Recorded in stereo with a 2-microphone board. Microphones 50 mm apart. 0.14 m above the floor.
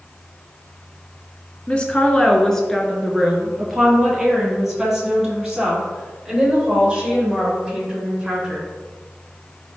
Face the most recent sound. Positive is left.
turn(degrees=-15)  # may be behind; listen again after turning